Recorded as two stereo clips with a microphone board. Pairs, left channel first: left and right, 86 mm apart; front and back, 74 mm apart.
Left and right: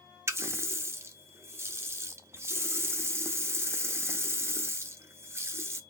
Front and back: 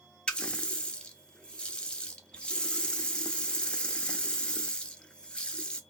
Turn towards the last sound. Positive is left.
turn(degrees=-65)